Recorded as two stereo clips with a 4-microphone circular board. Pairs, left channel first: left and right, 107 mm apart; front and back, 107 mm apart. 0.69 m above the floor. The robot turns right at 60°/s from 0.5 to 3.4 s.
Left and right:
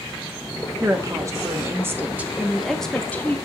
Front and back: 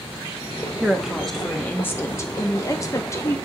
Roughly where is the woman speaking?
Behind right.